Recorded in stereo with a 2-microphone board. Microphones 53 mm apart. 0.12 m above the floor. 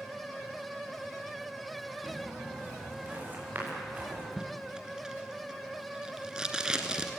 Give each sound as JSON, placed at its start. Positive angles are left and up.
{"t": 2.0, "sound": "footsteps", "side_deg": -30, "distance_m": 9.5}
{"t": 4.4, "sound": "tape being pulled", "side_deg": -15, "distance_m": 1.8}